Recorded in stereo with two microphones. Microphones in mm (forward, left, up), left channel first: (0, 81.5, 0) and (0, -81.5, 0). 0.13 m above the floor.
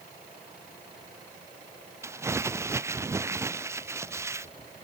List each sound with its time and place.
2.0 s crumpling: 15° right (ahead or behind)